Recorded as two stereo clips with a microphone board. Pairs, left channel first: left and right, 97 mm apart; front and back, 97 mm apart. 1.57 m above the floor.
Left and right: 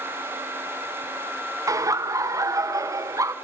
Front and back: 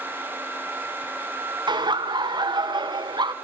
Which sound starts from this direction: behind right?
Laughter, at 1.7 s.